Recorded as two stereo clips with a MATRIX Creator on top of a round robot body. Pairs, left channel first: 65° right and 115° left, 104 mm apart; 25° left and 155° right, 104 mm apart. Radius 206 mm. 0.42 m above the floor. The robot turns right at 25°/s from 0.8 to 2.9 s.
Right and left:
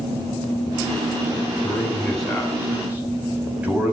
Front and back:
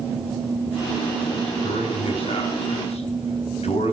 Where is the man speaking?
5° left, 4.5 m; by 3.9 s 35° left, 4.5 m.